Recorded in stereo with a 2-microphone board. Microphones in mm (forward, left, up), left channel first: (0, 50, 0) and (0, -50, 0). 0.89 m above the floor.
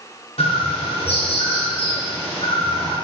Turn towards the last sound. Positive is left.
turn(degrees=75)  # may be behind; listen again after turning